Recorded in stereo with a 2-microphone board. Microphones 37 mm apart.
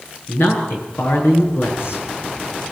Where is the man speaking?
80° left, 6.5 m.